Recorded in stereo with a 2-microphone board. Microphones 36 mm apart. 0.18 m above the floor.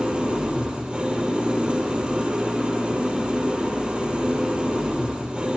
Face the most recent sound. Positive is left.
turn(degrees=-35)  # may be behind; listen again after turning